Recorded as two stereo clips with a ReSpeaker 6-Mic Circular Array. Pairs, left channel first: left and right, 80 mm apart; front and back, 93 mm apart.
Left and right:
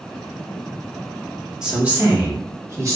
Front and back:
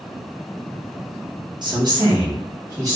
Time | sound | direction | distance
1.6 | a woman speaking | 165° right | 0.9 m